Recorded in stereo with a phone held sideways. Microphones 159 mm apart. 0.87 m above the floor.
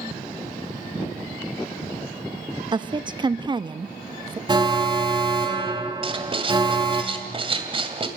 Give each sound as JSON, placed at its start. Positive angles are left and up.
{"t": 2.7, "sound": "a woman speaking", "side_deg": -30, "distance_m": 0.8}
{"t": 4.5, "sound": "an alarm", "side_deg": -30, "distance_m": 2.0}
{"t": 6.0, "sound": "writing", "side_deg": -35, "distance_m": 2.0}